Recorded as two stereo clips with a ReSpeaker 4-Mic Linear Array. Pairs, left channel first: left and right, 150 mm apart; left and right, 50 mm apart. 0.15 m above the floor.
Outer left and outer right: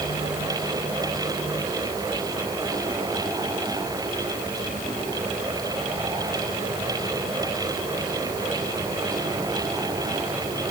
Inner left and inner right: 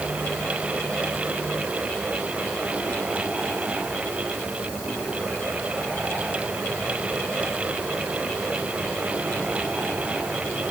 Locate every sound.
Only background noise.